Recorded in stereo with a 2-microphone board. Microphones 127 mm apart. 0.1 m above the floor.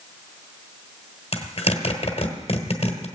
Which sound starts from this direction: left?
A zipper, at 1.3 s.